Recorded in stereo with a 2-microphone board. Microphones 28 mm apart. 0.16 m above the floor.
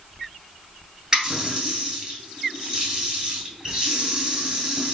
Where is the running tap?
35° right (ahead or behind), 1.5 m.